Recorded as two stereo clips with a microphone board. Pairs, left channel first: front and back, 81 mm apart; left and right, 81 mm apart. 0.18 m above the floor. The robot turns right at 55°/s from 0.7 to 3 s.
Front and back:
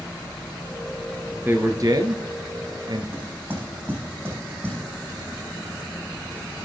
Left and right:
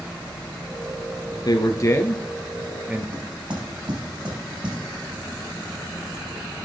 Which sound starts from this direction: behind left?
A man speaking, at 1.4 s.